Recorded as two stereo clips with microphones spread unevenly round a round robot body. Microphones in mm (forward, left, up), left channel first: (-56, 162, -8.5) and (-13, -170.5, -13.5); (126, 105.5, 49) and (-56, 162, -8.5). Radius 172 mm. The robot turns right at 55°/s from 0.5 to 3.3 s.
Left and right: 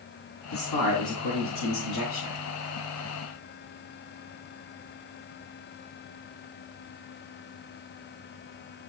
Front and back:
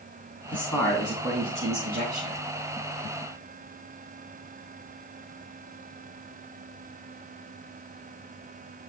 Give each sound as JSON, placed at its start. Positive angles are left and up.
{"t": 0.5, "sound": "a man speaking", "azimuth_deg": 55, "distance_m": 4.0}